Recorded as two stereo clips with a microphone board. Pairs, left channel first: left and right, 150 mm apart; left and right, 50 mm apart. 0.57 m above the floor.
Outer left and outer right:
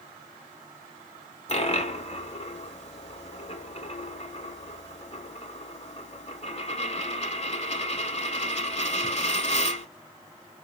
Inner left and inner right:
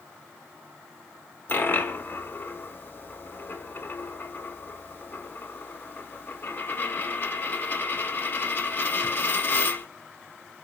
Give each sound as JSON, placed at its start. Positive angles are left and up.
{"t": 1.5, "sound": "a dropped coin", "side_deg": 45, "distance_m": 0.9}